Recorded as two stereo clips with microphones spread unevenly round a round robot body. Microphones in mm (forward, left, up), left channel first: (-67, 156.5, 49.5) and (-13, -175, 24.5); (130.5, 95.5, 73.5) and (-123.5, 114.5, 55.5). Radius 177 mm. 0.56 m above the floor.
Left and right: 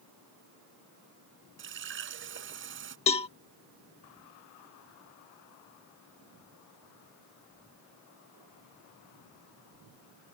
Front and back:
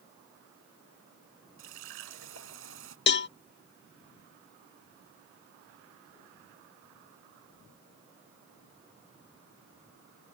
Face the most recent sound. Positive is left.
turn(degrees=30)